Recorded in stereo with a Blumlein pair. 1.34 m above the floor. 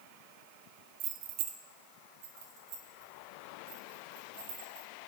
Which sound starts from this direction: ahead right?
Keys jangling, at 1.0 s.